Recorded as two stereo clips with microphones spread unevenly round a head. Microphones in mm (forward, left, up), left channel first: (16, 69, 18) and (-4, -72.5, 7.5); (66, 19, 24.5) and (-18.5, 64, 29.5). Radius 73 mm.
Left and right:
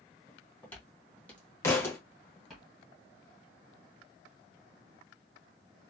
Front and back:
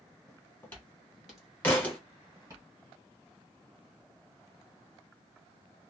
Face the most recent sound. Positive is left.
turn(degrees=35)